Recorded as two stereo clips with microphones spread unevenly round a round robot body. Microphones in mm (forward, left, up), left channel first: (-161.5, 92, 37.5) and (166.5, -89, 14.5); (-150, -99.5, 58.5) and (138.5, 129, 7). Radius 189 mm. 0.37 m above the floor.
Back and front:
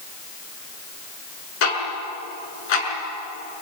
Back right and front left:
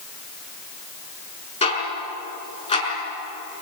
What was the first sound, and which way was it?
Ticking, 145° left.